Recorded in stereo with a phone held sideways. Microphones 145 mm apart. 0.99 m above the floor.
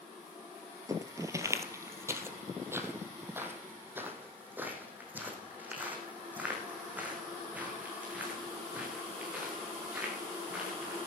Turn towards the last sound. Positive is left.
turn(degrees=-10)  # may be behind; listen again after turning